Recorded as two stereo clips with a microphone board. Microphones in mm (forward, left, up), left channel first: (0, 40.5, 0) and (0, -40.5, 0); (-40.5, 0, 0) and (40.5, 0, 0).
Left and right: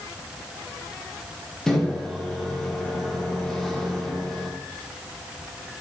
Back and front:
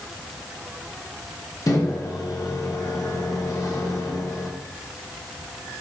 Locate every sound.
1.7 s a microwave: 170° left, 0.7 m